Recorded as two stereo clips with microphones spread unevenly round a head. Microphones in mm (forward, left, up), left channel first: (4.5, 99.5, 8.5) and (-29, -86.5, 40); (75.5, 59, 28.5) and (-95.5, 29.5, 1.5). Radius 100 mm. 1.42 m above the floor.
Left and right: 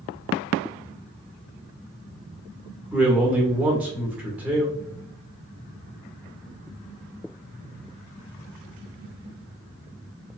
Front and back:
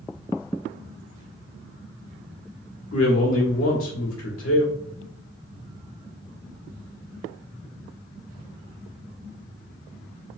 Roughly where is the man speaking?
Ahead.